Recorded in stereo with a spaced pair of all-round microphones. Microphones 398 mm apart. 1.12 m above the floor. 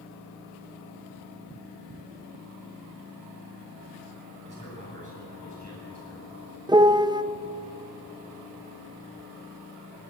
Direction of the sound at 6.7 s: 10° right (ahead or behind).